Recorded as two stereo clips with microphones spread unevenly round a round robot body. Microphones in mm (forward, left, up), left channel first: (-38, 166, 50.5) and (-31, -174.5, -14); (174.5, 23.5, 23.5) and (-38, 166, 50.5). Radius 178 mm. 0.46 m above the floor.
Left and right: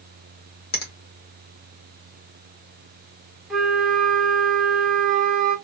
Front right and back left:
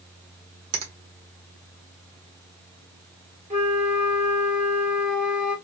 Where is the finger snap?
160° left, 1.1 m.